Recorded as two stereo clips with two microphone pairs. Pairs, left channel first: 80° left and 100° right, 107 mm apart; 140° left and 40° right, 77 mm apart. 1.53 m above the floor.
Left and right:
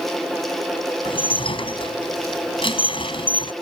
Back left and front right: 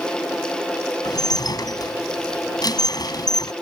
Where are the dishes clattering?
115° left.